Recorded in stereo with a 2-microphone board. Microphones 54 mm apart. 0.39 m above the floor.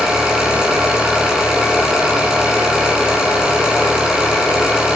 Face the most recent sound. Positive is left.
turn(degrees=-15)  # may be behind; listen again after turning